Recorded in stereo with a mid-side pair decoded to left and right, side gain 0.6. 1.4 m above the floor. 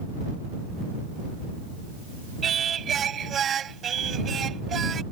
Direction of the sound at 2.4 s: 40° right.